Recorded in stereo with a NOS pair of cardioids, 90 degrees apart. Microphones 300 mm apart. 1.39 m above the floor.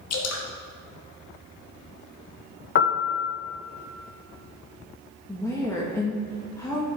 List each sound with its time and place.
0.1 s dripping: 60° left, 1.6 m
2.8 s a piano: 40° left, 0.8 m
5.3 s a woman speaking: 10° left, 1.5 m